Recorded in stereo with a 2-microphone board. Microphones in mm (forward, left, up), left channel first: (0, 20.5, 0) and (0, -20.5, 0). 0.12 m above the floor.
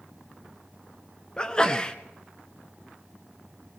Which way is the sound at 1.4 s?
20° left (ahead or behind).